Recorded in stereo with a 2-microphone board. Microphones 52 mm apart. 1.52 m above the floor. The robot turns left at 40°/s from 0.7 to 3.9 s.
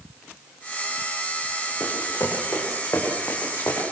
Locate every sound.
1.8 s running footsteps: 55° left (ahead or behind), 6 m; by 3.8 s 50° left (ahead or behind), 6 m